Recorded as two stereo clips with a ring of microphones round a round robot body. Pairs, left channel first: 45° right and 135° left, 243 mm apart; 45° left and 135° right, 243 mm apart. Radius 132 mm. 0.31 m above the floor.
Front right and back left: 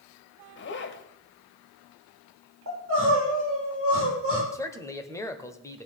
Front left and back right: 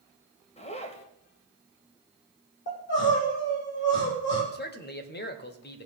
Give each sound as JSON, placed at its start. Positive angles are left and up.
{"t": 0.6, "sound": "a zipper", "azimuth_deg": -15, "distance_m": 1.4}
{"t": 2.7, "sound": "crying", "azimuth_deg": 95, "distance_m": 6.5}
{"t": 4.5, "sound": "a man speaking", "azimuth_deg": 30, "distance_m": 1.5}